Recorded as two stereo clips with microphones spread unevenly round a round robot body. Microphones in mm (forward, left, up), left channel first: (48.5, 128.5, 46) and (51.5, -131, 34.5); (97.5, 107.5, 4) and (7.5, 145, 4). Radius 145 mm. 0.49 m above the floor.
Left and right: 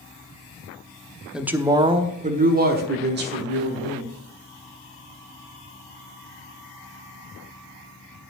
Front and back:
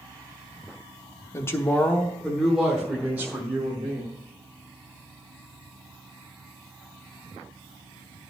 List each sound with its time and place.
1.3 s a woman speaking: 10° right, 0.9 m; by 4.1 s 135° right, 1.8 m